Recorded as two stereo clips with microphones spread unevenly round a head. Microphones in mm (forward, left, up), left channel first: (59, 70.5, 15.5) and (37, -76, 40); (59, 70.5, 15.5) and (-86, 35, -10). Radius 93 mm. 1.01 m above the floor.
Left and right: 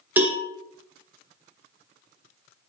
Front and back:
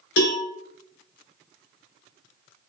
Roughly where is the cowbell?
Ahead.